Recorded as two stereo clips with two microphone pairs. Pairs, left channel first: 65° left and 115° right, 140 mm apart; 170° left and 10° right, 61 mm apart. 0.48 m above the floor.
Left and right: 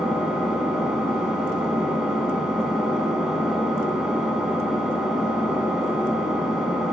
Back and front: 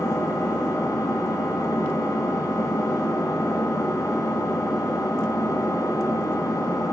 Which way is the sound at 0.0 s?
155° left.